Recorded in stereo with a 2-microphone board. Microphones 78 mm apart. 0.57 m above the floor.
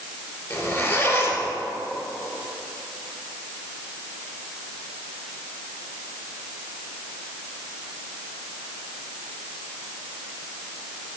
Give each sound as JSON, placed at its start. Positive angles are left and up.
{"t": 0.5, "sound": "a zipper", "side_deg": 35, "distance_m": 2.0}